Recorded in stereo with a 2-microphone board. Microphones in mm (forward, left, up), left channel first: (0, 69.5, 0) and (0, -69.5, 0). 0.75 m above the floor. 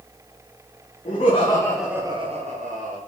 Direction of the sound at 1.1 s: 55° left (ahead or behind).